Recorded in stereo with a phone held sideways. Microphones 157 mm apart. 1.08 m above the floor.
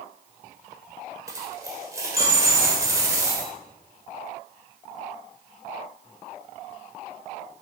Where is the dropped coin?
20° right (ahead or behind), 1.8 m.